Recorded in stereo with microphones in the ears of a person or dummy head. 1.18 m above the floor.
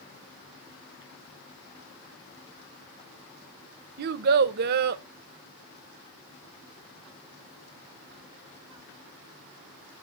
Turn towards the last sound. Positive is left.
turn(degrees=-55)  # may be behind; listen again after turning